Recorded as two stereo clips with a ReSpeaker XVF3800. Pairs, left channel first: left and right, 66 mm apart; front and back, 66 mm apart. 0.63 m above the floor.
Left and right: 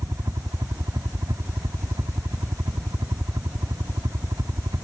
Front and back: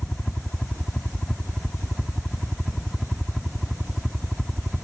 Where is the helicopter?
80° right; by 4.8 s 95° right.